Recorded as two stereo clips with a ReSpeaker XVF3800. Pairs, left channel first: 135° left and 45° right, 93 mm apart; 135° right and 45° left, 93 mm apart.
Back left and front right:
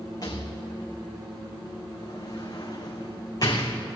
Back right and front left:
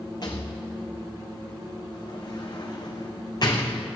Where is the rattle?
Straight behind, 1.6 m.